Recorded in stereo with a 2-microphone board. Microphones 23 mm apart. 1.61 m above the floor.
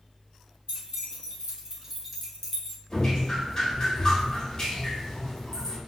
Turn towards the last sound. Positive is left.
turn(degrees=35)  # may be behind; listen again after turning